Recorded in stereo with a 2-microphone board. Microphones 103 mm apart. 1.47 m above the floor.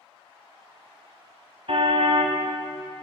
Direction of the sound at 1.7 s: 70° right (ahead or behind).